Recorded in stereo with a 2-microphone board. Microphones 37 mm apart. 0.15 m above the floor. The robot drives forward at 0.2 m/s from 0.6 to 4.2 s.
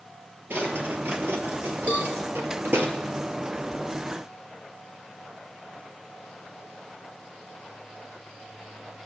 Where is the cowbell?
45° right (ahead or behind), 2.0 m.